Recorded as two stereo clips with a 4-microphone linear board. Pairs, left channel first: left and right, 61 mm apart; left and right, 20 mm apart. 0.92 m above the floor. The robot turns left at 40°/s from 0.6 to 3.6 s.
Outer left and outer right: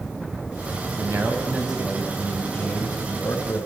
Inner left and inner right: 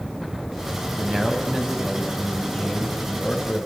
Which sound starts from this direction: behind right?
A man speaking, at 1.0 s.